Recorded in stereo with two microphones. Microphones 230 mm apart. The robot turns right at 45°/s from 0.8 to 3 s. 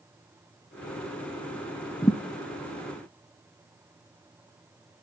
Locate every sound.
2.0 s a thud: 15° left (ahead or behind), 1.1 m; by 2.2 s 20° left (ahead or behind), 1.1 m